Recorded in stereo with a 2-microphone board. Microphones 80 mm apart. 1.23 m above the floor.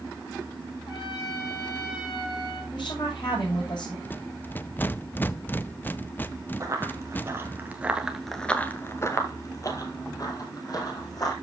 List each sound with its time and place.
0.9 s a trumpet: 80° left, 6 m
2.7 s a woman speaking: 70° left (ahead or behind), 6.5 m
4.0 s a rattle: 25° left (ahead or behind), 0.5 m
6.6 s running footsteps: 40° right (ahead or behind), 2.5 m; by 11.3 s 50° left (ahead or behind), 4 m